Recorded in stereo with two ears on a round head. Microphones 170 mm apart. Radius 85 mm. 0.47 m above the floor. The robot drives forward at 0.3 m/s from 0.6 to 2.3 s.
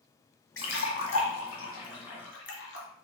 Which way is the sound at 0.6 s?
80° left.